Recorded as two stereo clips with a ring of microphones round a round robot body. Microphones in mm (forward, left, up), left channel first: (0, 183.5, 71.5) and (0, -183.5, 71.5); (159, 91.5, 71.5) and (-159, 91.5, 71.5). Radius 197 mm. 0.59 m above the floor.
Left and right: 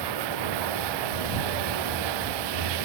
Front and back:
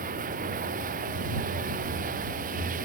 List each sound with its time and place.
0.0 s running water: 110° right